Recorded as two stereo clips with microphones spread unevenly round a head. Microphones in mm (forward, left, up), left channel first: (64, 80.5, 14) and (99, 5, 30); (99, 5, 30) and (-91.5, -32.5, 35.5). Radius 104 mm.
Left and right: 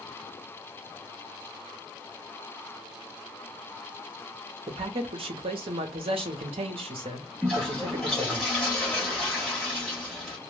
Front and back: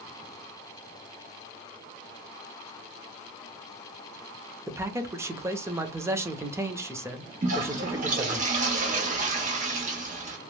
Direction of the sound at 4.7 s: 90° right.